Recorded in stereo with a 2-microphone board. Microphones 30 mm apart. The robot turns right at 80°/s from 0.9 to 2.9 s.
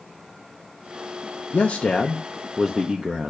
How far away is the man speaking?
About 0.7 m.